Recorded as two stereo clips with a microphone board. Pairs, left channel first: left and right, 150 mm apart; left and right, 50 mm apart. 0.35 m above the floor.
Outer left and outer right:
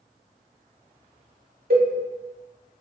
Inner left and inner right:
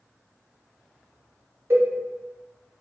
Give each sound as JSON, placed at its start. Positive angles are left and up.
{"t": 1.7, "sound": "a cowbell", "side_deg": -80, "distance_m": 0.7}